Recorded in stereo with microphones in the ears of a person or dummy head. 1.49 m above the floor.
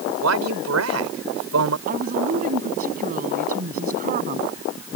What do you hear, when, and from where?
0.2 s a man speaking: 85° right
1.9 s a woman speaking: 45° right (ahead or behind)